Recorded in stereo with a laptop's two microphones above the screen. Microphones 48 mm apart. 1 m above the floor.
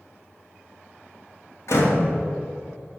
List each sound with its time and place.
1.7 s a door slam: 65° left (ahead or behind), 1.6 m